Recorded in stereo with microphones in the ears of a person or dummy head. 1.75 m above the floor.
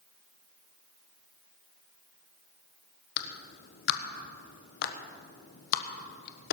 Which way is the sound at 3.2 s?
60° left (ahead or behind).